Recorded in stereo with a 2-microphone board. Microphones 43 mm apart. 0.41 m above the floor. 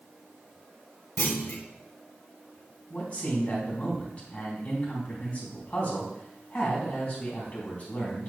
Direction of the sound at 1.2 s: 65° left (ahead or behind).